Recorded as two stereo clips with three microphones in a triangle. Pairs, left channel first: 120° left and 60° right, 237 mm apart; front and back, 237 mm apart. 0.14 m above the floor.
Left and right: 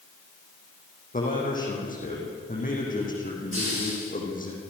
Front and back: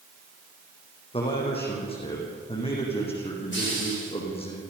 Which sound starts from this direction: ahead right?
A hiss, at 3.5 s.